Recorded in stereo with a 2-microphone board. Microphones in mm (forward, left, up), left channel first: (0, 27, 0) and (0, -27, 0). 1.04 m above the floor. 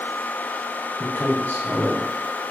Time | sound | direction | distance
1.0 | a man speaking | 50° left (ahead or behind) | 1.0 m